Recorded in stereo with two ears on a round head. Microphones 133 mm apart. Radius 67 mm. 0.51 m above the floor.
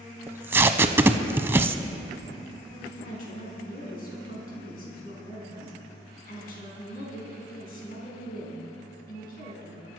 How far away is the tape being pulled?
About 0.6 m.